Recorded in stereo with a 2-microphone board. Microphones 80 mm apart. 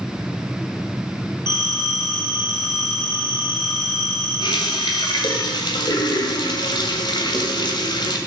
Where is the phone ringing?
65° left (ahead or behind), 5 m.